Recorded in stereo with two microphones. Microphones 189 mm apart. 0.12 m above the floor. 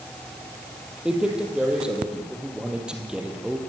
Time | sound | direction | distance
1.1 | a man speaking | 5° right (ahead or behind) | 3.5 m